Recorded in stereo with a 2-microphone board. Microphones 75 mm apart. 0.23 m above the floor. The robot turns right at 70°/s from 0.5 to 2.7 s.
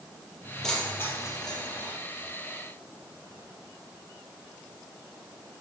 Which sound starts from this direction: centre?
Keys jangling, at 0.6 s.